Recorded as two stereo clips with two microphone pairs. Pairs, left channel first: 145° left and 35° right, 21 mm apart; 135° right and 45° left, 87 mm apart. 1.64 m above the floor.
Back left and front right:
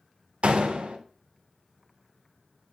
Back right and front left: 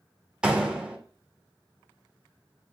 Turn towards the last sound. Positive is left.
turn(degrees=-35)